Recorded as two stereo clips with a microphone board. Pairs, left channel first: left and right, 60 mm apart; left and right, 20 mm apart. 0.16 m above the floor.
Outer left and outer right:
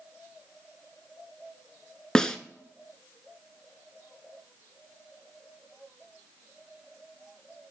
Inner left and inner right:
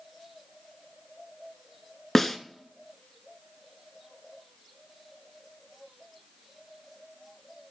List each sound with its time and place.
2.1 s a snare drum: 10° left (ahead or behind), 0.6 m